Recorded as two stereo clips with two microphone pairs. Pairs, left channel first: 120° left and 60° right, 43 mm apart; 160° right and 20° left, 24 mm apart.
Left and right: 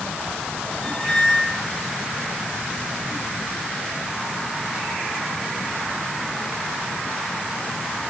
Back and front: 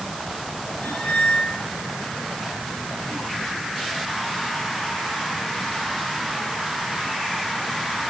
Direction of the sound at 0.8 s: 170° right.